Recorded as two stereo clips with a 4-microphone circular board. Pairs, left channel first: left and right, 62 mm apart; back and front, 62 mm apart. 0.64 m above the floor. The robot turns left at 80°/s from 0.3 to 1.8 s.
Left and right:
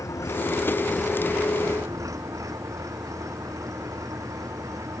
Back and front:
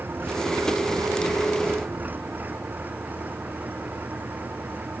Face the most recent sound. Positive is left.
turn(degrees=-60)